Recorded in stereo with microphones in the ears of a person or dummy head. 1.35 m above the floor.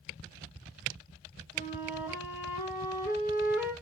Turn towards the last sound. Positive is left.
turn(degrees=-10)  # may be behind; listen again after turning